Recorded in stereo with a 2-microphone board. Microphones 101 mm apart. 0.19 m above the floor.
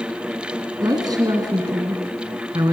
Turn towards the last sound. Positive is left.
turn(degrees=-40)  # may be behind; listen again after turning